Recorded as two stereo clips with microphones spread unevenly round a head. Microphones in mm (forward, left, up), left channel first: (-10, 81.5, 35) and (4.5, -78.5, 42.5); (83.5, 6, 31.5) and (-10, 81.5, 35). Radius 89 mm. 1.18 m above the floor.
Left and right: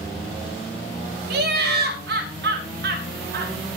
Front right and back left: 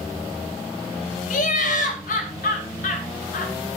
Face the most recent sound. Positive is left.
turn(degrees=-60)